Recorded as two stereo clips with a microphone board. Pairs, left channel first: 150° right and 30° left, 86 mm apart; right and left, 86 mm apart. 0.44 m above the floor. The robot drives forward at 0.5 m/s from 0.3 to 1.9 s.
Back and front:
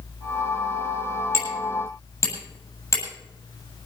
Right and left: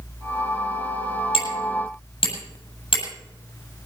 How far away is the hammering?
About 7.5 m.